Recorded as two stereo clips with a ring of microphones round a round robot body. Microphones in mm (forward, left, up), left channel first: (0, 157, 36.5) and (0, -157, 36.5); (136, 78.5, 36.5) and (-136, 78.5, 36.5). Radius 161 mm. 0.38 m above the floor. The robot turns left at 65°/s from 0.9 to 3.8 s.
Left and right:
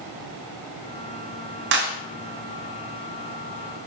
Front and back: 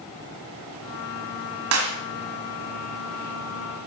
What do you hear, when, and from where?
1.7 s a clap: 140° right, 2.5 m; by 2.0 s 155° right, 2.5 m